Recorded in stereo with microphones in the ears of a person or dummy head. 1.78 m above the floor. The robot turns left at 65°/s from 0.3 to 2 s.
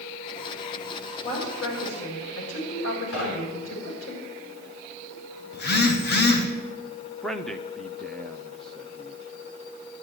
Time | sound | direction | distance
1.2 | a woman speaking | 30° left (ahead or behind) | 6.5 m
3.1 | knocking | 75° left (ahead or behind) | 3.5 m
5.5 | a phone buzzing | 50° left (ahead or behind) | 1.4 m
7.2 | a man speaking | centre (ahead or behind) | 0.6 m